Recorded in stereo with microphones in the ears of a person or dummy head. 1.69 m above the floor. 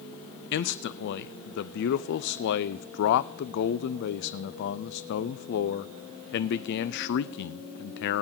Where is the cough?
No cough in this recording.